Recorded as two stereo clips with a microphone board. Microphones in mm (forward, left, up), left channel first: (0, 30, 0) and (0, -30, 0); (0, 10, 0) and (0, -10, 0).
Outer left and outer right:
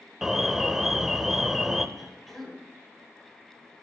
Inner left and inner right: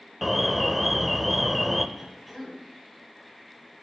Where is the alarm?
5° right (ahead or behind), 1.1 m.